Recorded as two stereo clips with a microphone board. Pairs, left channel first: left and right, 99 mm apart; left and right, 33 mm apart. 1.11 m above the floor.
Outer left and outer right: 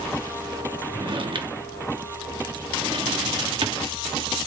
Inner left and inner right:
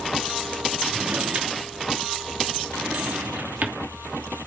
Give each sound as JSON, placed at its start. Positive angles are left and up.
{"t": 0.9, "sound": "a drawer", "side_deg": -60, "distance_m": 1.1}